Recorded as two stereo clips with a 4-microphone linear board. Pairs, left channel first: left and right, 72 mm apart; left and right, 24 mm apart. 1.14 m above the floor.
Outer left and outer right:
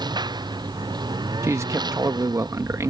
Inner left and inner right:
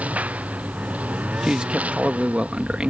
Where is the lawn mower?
85° right; by 2.9 s 80° right.